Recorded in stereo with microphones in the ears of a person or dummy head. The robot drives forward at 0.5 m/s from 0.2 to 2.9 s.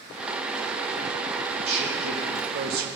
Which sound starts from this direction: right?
A man speaking, at 1.6 s.